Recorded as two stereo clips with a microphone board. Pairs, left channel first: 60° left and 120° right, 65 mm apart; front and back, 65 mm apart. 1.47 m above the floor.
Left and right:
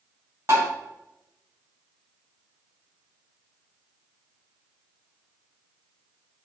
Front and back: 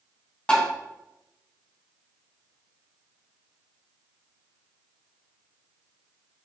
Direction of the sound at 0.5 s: 75° right.